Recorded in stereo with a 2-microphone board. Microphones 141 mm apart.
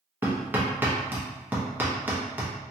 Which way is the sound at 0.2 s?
15° right (ahead or behind).